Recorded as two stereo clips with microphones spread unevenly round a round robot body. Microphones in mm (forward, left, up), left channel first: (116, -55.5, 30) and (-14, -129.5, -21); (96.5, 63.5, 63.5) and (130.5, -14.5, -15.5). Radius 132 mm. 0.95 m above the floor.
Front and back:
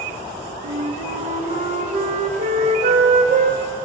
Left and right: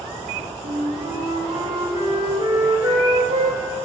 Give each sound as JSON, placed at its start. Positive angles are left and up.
{"t": 0.6, "sound": "a flute", "azimuth_deg": -110, "distance_m": 0.8}